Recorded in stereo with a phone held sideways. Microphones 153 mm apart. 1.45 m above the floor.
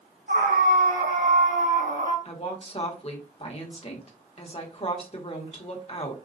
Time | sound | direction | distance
0.3 | a scream | 80° right | 1.3 m
2.2 | a woman speaking | 40° left (ahead or behind) | 1.2 m